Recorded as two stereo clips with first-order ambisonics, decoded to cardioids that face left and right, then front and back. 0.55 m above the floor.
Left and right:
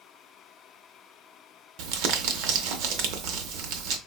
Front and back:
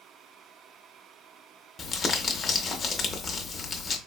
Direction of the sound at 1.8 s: 70° right.